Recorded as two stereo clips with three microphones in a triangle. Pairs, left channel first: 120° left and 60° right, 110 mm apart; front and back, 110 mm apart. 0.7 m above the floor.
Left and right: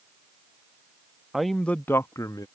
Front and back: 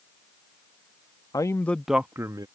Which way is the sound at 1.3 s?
25° left.